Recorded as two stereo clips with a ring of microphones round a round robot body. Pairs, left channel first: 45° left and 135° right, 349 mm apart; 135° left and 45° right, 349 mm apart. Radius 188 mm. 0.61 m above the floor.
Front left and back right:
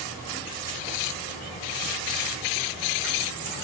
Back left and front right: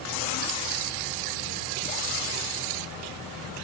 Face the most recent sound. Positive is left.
No sound to turn to.